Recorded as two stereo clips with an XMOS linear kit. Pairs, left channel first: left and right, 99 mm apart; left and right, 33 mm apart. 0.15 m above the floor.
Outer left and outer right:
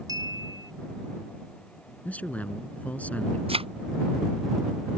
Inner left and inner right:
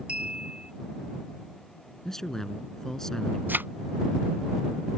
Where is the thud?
75° right (ahead or behind).